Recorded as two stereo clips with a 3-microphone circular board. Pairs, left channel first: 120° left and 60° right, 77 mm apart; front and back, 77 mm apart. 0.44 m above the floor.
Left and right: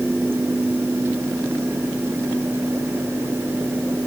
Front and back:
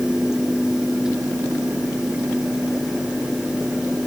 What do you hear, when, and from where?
Only background noise.